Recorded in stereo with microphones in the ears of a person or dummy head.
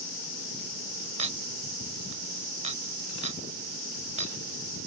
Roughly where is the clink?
Right.